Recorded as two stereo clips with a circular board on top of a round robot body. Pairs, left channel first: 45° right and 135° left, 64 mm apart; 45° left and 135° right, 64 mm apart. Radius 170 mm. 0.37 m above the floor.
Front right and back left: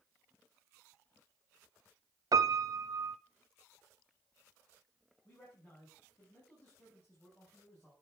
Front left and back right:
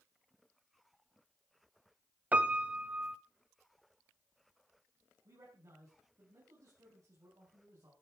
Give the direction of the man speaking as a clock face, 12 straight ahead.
4 o'clock.